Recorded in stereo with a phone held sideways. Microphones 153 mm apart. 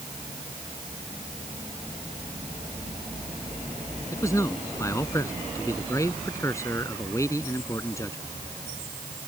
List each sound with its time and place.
4.1 s a man speaking: 20° left (ahead or behind)